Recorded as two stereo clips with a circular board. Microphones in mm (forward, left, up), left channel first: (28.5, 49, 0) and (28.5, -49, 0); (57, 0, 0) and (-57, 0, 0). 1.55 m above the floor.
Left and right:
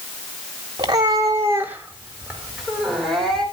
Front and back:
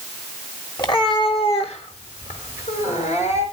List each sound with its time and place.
0.8 s a cat meowing: 45° right, 2.5 m; by 3.4 s 5° left, 4.5 m